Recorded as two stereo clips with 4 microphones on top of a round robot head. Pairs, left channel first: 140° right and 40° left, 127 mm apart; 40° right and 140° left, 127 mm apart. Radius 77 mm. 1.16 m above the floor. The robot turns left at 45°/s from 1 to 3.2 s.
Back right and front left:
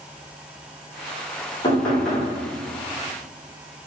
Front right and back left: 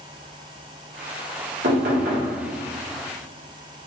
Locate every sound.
1.6 s knocking: 150° left, 1.3 m; by 2.3 s 125° left, 1.3 m